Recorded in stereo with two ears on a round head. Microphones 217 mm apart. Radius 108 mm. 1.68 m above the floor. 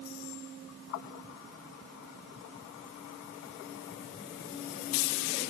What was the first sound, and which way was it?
Only background noise.